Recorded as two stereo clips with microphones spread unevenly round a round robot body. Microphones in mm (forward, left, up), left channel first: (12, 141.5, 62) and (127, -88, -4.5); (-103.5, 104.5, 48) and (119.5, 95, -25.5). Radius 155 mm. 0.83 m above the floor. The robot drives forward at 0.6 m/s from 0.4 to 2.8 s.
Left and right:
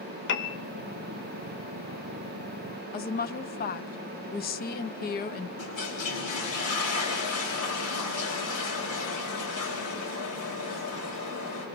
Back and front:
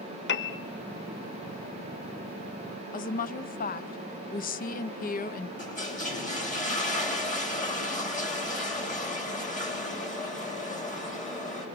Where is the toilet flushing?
120° left, 4.5 m.